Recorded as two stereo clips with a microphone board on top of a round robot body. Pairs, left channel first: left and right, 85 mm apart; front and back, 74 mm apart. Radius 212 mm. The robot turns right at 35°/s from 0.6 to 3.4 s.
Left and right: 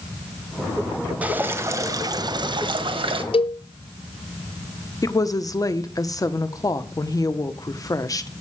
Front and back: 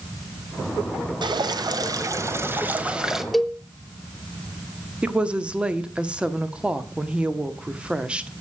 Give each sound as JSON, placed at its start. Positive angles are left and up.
{"t": 1.2, "sound": "dripping", "azimuth_deg": -165, "distance_m": 1.3}
{"t": 3.3, "sound": "a cowbell", "azimuth_deg": 90, "distance_m": 0.7}
{"t": 5.0, "sound": "a woman speaking", "azimuth_deg": 110, "distance_m": 1.3}